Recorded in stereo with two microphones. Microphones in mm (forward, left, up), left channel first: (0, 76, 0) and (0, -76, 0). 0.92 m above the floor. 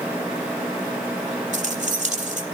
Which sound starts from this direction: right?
Keys jangling, at 1.5 s.